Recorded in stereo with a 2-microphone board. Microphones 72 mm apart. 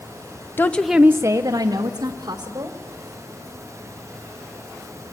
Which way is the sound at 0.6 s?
30° left (ahead or behind).